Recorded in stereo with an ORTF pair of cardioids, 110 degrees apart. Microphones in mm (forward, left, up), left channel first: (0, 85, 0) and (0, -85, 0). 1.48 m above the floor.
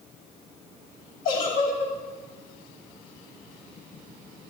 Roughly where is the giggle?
Left.